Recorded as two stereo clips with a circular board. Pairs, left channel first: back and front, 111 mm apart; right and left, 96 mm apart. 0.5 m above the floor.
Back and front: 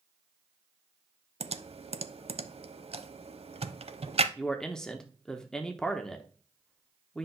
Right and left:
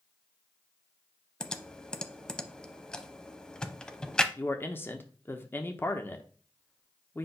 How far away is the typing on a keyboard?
About 0.5 m.